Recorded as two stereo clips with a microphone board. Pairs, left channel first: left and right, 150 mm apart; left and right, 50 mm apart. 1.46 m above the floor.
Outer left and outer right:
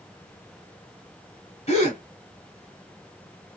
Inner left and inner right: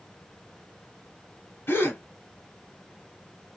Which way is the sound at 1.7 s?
45° left (ahead or behind).